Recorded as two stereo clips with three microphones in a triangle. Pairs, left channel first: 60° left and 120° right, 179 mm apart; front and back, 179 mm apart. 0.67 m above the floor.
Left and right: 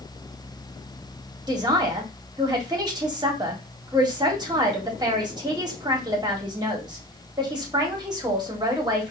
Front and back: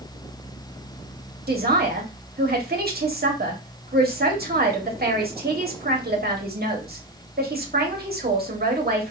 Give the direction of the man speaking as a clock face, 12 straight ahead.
6 o'clock.